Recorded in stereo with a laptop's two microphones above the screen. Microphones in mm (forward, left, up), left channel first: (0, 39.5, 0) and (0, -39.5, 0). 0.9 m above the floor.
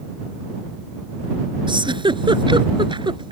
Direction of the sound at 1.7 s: 85° right.